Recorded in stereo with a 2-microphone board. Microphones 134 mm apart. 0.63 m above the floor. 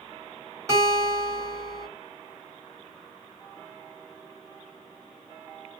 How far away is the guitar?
About 1.7 m.